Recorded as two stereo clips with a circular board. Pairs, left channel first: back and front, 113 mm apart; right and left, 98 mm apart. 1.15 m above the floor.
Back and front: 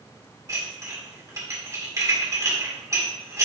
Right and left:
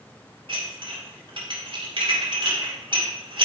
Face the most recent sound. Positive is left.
turn(degrees=60)